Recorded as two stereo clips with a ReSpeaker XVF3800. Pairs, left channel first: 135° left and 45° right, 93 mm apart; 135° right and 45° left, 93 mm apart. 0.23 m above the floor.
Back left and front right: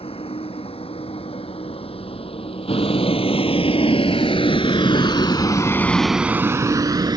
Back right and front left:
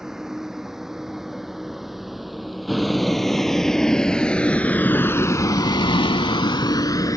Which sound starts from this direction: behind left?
A vehicle, at 0.0 s.